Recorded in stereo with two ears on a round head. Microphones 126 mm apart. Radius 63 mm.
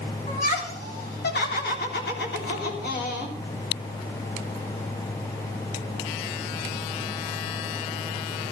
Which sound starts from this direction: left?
Laughter, at 0.3 s.